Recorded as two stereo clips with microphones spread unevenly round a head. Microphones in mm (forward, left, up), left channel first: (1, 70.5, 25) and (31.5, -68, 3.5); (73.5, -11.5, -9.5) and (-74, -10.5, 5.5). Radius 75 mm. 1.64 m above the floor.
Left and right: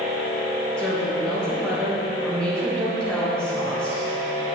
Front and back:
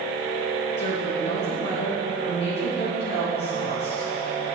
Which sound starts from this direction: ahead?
A woman speaking, at 0.8 s.